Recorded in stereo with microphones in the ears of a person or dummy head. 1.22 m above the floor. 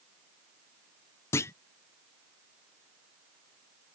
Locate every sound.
1.3 s a clunk: 15° left (ahead or behind)